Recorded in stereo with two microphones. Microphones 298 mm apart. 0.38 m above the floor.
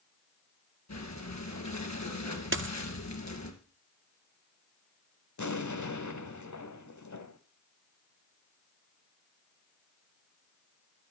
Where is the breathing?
65° left (ahead or behind), 2.5 m.